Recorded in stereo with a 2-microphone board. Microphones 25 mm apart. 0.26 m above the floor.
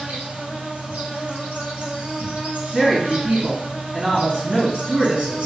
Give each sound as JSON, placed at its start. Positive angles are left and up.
{"t": 0.0, "sound": "an insect", "side_deg": -70, "distance_m": 1.2}
{"t": 2.7, "sound": "a woman speaking", "side_deg": -55, "distance_m": 2.0}